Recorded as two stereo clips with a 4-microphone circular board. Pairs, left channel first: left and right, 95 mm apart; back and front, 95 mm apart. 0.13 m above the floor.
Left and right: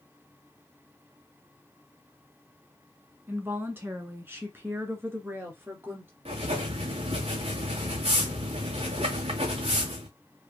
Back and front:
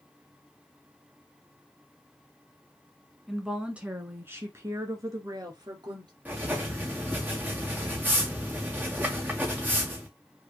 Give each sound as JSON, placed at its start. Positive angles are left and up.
{"t": 3.3, "sound": "a woman speaking", "azimuth_deg": -85, "distance_m": 1.2}
{"t": 6.2, "sound": "writing", "azimuth_deg": -75, "distance_m": 2.5}